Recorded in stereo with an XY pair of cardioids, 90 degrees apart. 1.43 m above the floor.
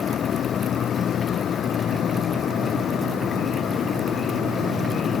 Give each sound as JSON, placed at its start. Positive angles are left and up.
{"t": 0.0, "sound": "a fan", "azimuth_deg": 65}